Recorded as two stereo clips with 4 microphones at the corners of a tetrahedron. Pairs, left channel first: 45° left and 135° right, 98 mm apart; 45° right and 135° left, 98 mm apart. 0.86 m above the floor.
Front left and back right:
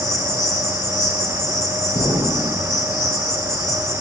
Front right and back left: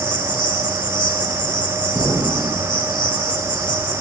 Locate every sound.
0.0 s an insect: 5° right, 1.7 m
1.9 s an explosion: 35° left, 4 m